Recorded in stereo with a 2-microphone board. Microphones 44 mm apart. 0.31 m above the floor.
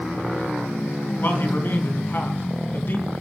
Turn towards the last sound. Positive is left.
turn(degrees=50)  # may be behind; listen again after turning